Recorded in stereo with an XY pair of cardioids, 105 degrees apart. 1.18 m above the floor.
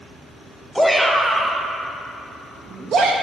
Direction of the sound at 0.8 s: 5° right.